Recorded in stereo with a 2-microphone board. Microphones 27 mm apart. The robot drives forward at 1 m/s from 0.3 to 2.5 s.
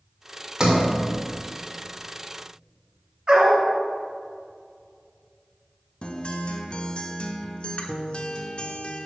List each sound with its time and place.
0.6 s a sliding door: 30° right (ahead or behind), 1.6 m; by 0.9 s 35° right (ahead or behind), 1.5 m
3.3 s a dog barking: 40° right (ahead or behind), 2.5 m
6.0 s a guitar: 40° left (ahead or behind), 0.7 m